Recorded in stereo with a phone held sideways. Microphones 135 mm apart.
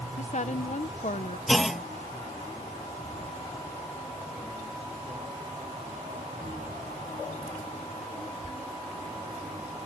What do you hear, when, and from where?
0.2 s a woman speaking: 60° left (ahead or behind)
1.5 s a clunk: centre (ahead or behind)